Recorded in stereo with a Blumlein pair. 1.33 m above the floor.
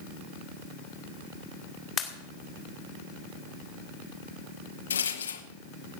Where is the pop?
25° left, 2 m.